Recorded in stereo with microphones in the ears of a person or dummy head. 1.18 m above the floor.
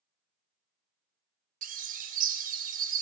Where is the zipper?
I don't hear a zipper.